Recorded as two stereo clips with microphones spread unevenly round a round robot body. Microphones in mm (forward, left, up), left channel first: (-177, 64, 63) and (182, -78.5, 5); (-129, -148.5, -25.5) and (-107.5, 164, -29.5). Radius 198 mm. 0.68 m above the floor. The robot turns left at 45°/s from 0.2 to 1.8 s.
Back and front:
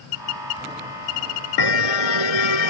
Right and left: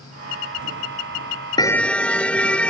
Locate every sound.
1.6 s a car horn: 170° right; by 2.7 s straight behind